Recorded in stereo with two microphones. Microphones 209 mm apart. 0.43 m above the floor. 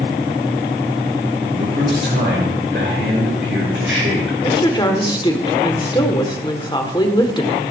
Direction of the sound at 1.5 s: 60° right (ahead or behind).